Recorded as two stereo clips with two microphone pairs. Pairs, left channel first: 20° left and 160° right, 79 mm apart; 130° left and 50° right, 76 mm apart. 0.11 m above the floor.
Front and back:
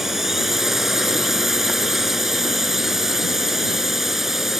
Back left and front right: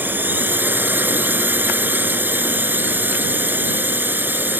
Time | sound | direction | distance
0.0 | a drone | 80° right | ?